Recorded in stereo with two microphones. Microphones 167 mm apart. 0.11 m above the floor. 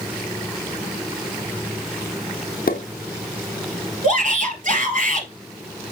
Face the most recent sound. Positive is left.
turn(degrees=-50)  # may be behind; listen again after turning